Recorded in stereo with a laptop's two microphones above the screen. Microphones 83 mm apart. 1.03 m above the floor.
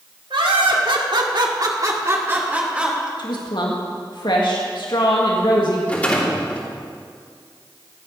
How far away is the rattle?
About 3 m.